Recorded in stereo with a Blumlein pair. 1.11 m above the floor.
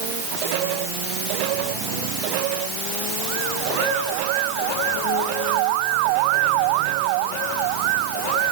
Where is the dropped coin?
No dropped coin in this recording.